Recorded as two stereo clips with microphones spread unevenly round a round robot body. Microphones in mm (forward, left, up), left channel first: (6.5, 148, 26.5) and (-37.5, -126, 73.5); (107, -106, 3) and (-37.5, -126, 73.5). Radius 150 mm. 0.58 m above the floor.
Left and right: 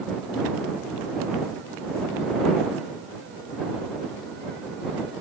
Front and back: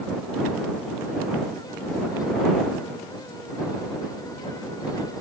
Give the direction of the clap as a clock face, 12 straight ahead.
No clap in this recording.